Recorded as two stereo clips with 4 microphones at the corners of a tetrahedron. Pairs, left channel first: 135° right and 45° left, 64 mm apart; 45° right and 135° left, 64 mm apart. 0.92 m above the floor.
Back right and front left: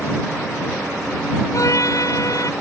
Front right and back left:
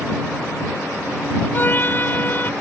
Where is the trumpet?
105° right.